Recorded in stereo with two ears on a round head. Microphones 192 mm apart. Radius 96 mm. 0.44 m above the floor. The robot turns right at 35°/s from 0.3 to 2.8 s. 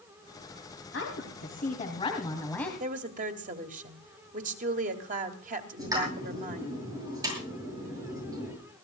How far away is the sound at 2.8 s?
About 2 m.